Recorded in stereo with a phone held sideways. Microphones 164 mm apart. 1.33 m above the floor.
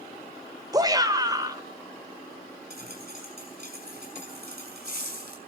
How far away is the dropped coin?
About 5.5 m.